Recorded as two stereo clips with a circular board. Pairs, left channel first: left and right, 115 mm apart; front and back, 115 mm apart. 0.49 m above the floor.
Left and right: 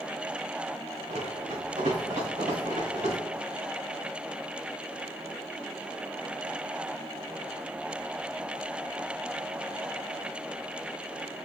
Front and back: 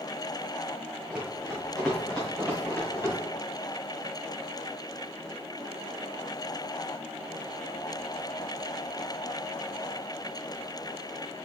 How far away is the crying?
I don't hear crying.